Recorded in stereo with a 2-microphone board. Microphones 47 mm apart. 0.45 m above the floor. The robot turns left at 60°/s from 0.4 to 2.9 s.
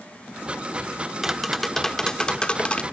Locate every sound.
1.2 s tapping: 5° right (ahead or behind), 0.7 m; by 2.8 s 25° left (ahead or behind), 0.7 m